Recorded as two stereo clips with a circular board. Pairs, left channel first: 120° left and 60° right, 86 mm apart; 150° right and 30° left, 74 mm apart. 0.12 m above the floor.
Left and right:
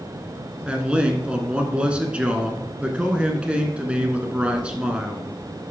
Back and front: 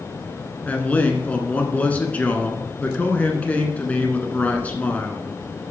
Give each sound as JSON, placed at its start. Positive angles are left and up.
{"t": 0.6, "sound": "a man speaking", "azimuth_deg": -115, "distance_m": 1.1}